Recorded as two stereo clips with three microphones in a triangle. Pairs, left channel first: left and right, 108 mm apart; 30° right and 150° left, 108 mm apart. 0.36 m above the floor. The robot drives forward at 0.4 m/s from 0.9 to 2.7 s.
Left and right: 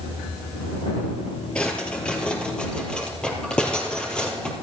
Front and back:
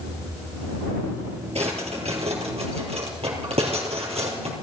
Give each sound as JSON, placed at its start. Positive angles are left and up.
{"t": 1.6, "sound": "a drawer", "azimuth_deg": 170, "distance_m": 2.5}